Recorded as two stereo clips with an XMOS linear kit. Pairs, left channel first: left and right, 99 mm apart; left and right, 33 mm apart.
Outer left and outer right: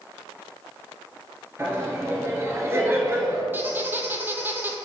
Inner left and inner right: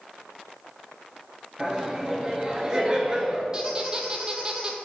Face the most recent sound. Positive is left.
turn(degrees=-20)  # may be behind; listen again after turning